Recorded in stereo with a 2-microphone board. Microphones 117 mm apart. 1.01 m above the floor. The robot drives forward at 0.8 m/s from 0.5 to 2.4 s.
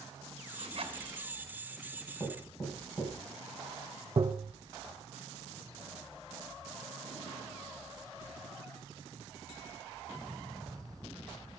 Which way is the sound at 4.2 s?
35° right (ahead or behind).